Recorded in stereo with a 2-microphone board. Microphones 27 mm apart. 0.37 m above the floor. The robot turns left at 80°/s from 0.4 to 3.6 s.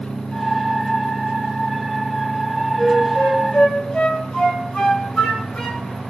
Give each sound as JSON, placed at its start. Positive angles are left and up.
{"t": 2.8, "sound": "a flute", "side_deg": 10, "distance_m": 1.8}